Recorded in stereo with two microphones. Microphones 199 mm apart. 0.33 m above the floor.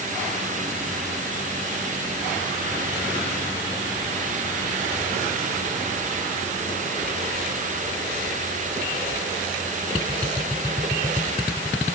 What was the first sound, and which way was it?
Only background noise.